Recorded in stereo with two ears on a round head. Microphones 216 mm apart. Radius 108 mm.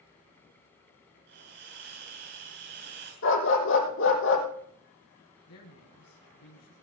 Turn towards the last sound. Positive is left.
turn(degrees=70)  # may be behind; listen again after turning